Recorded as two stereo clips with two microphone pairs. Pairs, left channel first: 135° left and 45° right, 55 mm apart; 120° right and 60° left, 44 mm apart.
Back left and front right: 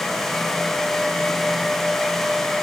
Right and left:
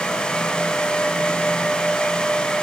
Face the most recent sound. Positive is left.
No sound to turn to.